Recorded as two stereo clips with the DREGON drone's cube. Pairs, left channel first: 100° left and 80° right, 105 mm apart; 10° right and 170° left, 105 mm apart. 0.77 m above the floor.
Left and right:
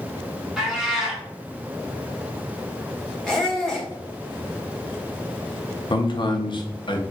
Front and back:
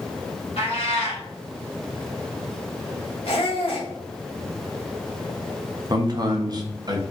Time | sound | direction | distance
0.6 | a cat meowing | 10° left | 1.8 m
3.2 | a squeak | 15° left | 1.3 m
5.9 | a man speaking | 125° left | 0.7 m